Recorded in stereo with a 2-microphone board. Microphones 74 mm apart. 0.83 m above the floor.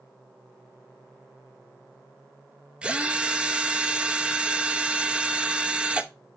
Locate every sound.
2.8 s a drill: 15° right (ahead or behind), 0.7 m